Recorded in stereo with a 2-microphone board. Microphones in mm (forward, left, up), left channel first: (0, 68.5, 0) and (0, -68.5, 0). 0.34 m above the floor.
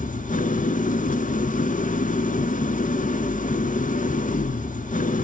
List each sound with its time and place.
0.0 s an engine running: 75° left (ahead or behind), 1.1 m